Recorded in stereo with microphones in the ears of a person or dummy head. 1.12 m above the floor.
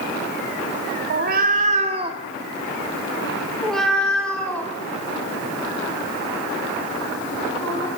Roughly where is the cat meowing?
Right.